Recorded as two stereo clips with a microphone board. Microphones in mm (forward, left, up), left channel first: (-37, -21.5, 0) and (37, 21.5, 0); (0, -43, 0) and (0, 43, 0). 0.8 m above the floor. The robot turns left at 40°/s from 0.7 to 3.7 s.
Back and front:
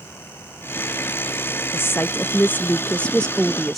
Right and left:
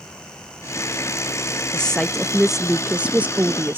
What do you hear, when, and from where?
1.7 s a woman speaking: 160° right; by 3.8 s 125° left